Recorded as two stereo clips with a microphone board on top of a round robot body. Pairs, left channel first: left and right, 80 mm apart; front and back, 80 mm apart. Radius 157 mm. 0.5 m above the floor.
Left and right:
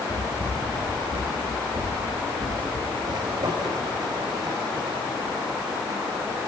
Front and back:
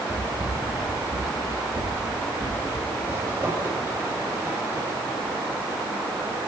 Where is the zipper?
120° right, 3 m.